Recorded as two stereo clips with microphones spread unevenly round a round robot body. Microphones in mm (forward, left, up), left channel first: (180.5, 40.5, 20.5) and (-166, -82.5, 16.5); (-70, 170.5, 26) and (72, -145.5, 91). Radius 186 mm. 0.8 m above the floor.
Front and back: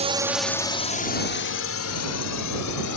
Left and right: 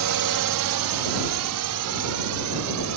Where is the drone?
95° right; by 3.0 s 20° right.